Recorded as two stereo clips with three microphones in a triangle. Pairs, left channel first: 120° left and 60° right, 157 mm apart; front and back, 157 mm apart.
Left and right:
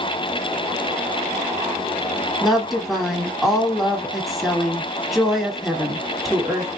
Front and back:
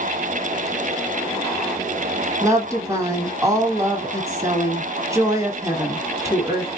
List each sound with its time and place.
2.4 s a woman speaking: 150° right, 1.1 m